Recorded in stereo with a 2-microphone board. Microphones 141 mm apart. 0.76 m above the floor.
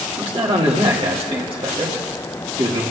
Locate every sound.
0.2 s a man speaking: 40° right (ahead or behind), 1.9 m